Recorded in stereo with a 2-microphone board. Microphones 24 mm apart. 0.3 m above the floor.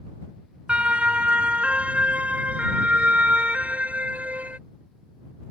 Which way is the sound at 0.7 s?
55° right (ahead or behind).